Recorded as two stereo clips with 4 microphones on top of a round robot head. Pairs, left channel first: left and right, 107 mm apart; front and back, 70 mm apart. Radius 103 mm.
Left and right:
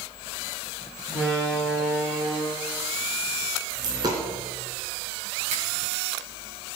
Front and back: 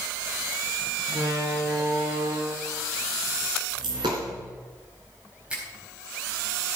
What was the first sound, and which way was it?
A door slam, 175° right.